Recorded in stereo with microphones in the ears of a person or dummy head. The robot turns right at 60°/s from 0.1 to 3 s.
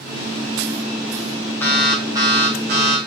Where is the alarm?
170° left, 3 m; by 3.0 s 110° right, 3 m.